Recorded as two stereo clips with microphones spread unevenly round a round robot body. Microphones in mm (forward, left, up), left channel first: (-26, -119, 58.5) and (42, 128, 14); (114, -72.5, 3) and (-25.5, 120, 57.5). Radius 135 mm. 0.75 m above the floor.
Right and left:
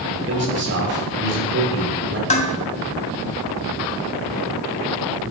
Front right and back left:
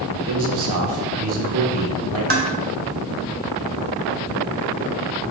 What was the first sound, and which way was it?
A man speaking, 120° left.